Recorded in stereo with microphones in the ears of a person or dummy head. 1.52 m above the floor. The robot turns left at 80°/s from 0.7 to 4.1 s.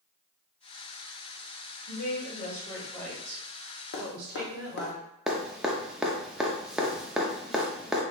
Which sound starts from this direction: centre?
Dripping, at 5.3 s.